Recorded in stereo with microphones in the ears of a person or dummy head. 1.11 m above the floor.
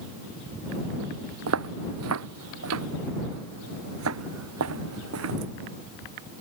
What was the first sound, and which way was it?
Footsteps, 80° right.